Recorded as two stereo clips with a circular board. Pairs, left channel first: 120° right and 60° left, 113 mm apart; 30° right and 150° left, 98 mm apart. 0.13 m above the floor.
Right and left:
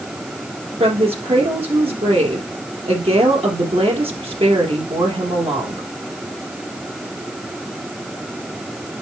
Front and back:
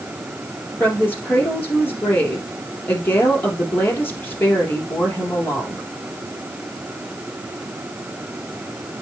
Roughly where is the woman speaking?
Ahead left.